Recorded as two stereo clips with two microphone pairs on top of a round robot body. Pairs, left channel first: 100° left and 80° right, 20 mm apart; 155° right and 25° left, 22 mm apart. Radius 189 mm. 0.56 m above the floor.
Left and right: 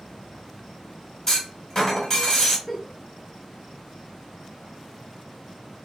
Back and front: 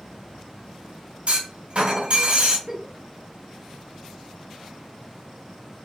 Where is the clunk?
30° left, 2 m.